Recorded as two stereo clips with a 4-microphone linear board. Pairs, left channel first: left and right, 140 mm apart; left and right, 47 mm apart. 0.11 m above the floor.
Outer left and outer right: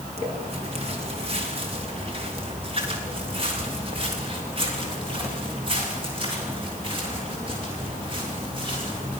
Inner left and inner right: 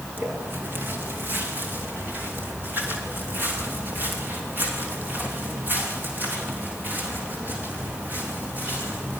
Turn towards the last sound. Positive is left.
turn(degrees=-40)  # may be behind; listen again after turning